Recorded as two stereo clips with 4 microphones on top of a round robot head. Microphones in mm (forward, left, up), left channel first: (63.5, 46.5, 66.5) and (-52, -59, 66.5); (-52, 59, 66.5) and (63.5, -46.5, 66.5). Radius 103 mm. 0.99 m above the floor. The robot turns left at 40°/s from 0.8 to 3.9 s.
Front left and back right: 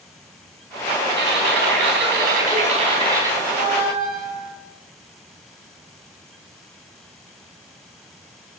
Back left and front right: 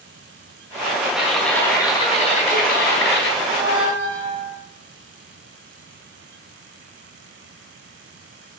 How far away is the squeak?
About 4 m.